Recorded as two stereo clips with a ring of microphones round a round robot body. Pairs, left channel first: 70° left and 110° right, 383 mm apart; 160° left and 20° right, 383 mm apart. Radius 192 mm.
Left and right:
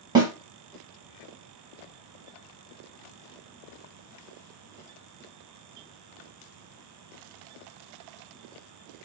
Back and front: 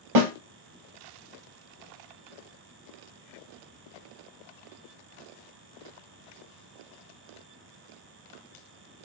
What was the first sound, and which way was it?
A snare drum, 30° right.